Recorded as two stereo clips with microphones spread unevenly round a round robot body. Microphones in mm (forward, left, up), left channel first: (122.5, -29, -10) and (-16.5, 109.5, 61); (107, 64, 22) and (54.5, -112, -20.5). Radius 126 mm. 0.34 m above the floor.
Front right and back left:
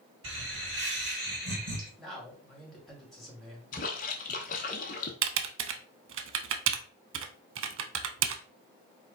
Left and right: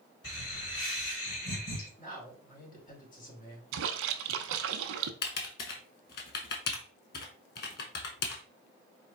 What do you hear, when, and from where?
0.2 s laughter: 115° left, 2.5 m; by 1.9 s 75° left, 3 m
2.0 s a man speaking: 30° left, 2.5 m
3.7 s a splash: 105° right, 0.6 m
5.2 s typing on a keyboard: 125° left, 0.6 m